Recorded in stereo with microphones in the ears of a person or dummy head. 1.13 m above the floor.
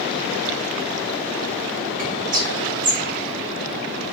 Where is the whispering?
45° right (ahead or behind), 0.9 m.